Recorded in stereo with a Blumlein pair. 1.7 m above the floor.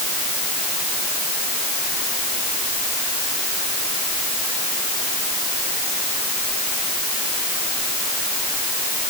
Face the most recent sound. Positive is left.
No sound to turn to.